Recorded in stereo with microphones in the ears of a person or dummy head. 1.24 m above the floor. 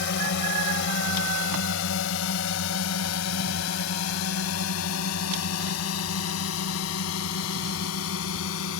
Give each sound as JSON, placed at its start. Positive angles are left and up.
{"t": 0.0, "sound": "a drone", "side_deg": 60}